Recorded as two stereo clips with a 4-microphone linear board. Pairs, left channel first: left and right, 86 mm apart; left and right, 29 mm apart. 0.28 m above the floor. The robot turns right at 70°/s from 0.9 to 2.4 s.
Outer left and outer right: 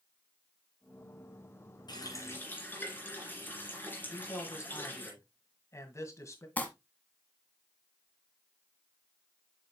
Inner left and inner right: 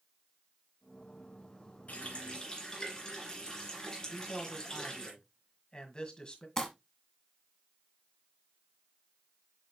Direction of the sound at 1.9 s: 120° left.